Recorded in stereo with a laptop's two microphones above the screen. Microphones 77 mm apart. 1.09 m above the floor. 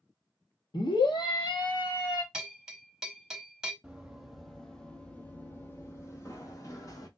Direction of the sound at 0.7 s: 70° left (ahead or behind).